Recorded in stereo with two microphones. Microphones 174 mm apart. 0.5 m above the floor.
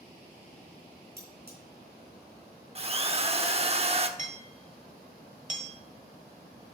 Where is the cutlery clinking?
70° right (ahead or behind), 3.5 m.